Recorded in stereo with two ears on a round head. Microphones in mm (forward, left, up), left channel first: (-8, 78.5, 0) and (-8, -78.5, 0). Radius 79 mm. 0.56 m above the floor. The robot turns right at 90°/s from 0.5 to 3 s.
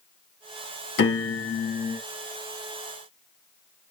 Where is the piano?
70° left, 2 m; by 2.0 s 165° left, 2 m.